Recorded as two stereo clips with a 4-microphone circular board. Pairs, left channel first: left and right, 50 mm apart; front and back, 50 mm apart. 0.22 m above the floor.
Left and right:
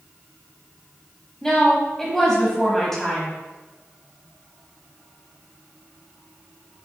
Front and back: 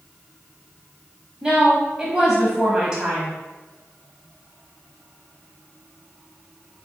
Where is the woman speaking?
145° left, 1.2 m.